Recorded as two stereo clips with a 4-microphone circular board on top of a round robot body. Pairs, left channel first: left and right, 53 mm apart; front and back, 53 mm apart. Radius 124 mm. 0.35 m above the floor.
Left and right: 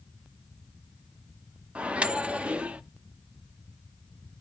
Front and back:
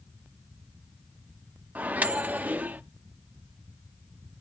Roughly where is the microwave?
Behind right.